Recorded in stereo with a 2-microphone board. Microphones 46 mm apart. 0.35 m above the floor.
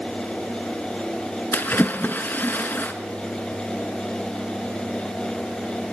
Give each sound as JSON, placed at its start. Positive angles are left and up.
{"t": 1.5, "sound": "a splash", "side_deg": 45, "distance_m": 2.5}